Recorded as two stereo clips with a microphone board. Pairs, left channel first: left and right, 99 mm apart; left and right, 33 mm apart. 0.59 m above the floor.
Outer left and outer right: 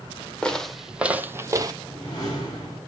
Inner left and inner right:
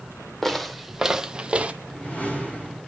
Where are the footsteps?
10° left (ahead or behind), 1.1 m; by 1.7 s 40° right (ahead or behind), 0.9 m.